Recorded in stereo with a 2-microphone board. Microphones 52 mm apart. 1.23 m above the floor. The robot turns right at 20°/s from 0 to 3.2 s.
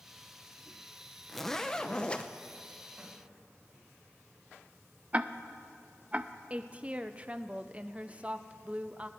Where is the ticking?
25° right (ahead or behind), 0.5 m.